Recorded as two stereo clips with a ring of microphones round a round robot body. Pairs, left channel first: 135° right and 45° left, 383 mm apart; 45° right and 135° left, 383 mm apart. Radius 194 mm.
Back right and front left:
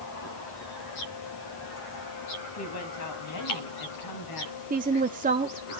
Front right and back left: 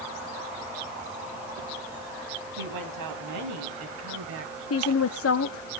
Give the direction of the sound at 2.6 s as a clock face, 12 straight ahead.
6 o'clock.